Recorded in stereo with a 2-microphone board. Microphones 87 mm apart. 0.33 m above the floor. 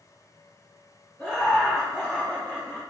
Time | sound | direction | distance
1.2 | laughter | 10° left (ahead or behind) | 1.6 m